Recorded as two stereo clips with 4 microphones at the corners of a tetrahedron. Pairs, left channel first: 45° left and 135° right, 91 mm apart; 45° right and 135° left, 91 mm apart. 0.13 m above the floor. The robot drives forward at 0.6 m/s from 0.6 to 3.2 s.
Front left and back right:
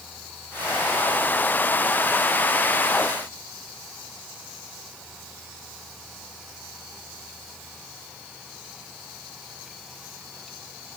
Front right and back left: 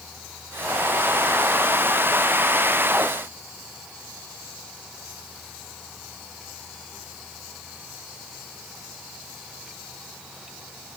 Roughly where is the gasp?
No gasp in this recording.